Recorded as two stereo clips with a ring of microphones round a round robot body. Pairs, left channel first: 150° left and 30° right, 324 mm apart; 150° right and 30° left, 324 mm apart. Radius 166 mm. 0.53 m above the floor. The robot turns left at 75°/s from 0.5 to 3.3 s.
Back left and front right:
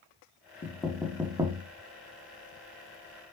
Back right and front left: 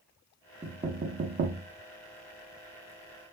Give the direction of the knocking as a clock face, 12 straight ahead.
9 o'clock.